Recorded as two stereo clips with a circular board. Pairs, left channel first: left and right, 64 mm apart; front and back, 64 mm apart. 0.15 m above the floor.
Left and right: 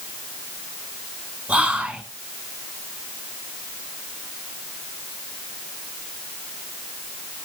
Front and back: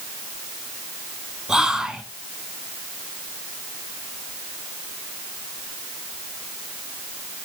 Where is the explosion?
No explosion in this recording.